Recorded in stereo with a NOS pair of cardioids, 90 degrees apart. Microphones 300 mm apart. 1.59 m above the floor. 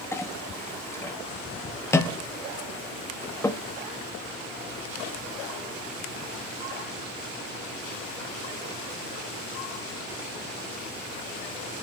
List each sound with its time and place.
0.1 s a clink: 10° left, 2.0 m